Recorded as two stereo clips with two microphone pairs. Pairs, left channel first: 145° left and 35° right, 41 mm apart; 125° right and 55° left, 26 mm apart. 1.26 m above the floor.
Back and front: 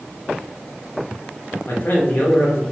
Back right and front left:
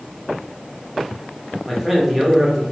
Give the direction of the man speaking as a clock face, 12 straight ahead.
7 o'clock.